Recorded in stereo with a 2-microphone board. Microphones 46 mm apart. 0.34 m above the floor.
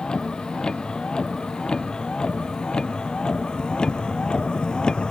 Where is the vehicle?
15° left (ahead or behind); by 5.1 s 20° left (ahead or behind).